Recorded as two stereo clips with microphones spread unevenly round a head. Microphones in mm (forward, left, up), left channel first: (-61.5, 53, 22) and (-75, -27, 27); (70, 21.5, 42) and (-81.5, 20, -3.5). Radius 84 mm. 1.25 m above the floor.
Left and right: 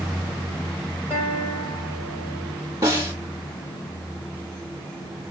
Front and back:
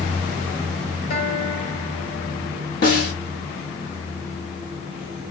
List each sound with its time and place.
1.1 s a guitar: 10° right, 5 m
2.8 s a snare drum: 30° right, 3.5 m